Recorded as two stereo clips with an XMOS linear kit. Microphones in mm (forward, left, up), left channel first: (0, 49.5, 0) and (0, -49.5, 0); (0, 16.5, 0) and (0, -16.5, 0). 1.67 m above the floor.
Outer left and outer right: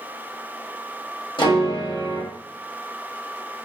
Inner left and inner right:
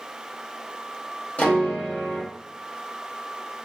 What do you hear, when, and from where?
1.4 s a piano: 55° left (ahead or behind), 0.9 m